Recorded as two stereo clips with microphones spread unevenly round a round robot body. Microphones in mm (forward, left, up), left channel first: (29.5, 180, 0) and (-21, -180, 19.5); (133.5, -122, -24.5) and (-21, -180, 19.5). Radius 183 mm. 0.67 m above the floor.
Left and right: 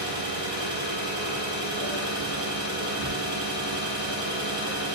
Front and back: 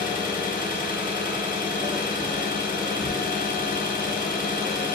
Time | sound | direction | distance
0.0 | an engine running | 20° right | 1.2 m